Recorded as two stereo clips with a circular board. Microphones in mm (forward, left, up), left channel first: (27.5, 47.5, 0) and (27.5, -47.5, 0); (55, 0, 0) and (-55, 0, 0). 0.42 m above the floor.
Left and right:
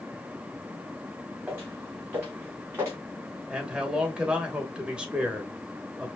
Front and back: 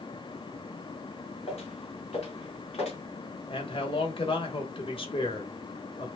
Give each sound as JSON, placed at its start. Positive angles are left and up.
{"t": 1.5, "sound": "footsteps", "azimuth_deg": -25, "distance_m": 2.5}
{"t": 3.5, "sound": "a man speaking", "azimuth_deg": -10, "distance_m": 1.3}